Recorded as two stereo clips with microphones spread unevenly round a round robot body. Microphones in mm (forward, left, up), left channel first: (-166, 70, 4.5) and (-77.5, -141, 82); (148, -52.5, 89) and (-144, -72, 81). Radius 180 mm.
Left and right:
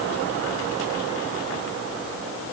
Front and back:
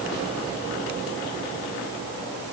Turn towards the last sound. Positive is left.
No sound to turn to.